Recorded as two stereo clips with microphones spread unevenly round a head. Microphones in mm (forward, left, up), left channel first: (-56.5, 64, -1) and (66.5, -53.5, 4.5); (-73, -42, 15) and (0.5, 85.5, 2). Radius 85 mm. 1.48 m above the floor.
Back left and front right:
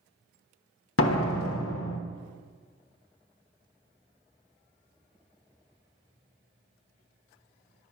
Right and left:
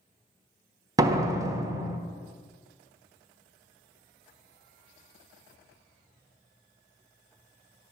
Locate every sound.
1.0 s a door slam: 130° left, 1.1 m